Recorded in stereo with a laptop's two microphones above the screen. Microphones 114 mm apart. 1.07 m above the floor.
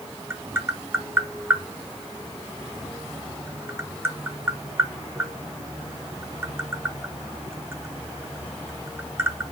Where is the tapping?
20° right (ahead or behind), 0.6 m.